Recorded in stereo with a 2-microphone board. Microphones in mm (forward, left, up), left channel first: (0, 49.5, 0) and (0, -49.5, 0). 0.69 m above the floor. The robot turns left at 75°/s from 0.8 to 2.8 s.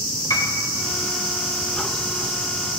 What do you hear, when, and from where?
0.3 s a piano: 35° left (ahead or behind), 1.7 m